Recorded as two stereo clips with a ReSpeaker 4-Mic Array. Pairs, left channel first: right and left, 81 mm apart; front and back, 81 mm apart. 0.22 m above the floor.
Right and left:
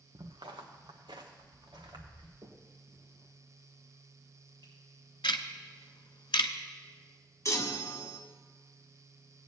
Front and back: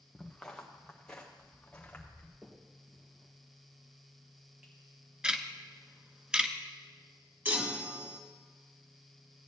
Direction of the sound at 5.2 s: 100° right.